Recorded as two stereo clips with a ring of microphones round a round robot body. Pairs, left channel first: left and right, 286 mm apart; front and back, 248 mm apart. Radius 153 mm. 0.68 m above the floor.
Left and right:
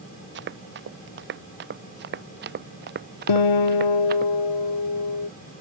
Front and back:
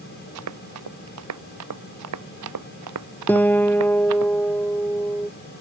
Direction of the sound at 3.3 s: 85° left.